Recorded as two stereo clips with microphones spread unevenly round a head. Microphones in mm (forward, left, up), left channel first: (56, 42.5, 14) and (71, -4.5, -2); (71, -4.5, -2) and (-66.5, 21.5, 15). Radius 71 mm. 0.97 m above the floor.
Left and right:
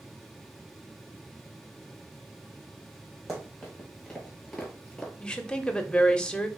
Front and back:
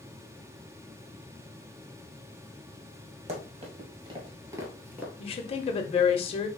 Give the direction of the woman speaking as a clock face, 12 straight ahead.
11 o'clock.